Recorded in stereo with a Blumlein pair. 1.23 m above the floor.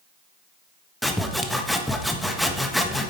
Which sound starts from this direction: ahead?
Sawing, at 1.0 s.